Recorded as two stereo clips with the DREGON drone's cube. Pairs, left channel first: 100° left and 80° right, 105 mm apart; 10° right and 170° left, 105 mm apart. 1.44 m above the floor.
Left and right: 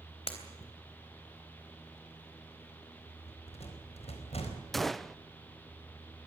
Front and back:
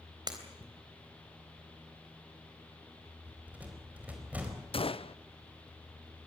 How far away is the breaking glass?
About 3.5 m.